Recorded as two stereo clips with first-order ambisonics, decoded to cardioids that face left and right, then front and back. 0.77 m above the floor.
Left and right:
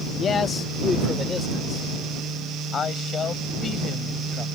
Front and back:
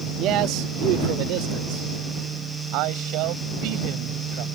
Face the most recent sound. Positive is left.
turn(degrees=155)